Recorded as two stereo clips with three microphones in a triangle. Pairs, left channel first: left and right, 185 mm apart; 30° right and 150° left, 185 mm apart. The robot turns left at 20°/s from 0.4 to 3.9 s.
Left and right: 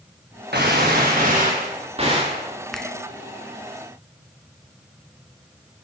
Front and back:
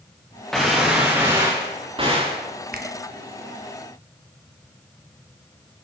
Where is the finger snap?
Straight behind, 2.0 m; by 2.9 s 175° left, 2.0 m.